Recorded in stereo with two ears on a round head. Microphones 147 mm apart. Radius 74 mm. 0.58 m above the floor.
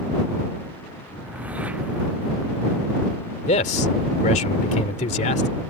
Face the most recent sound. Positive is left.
turn(degrees=45)  # may be behind; listen again after turning